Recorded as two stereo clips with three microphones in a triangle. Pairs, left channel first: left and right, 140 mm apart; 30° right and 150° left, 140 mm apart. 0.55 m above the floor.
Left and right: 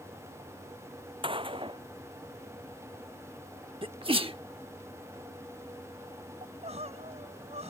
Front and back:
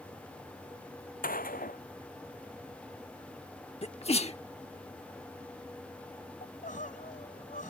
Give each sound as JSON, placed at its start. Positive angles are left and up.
{"t": 1.2, "sound": "a gunshot", "azimuth_deg": -35}
{"t": 3.8, "sound": "a sneeze", "azimuth_deg": -55}
{"t": 6.4, "sound": "crying", "azimuth_deg": -50}